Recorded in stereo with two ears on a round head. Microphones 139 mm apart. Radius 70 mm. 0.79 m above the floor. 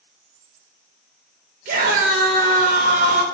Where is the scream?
50° right (ahead or behind), 0.5 m.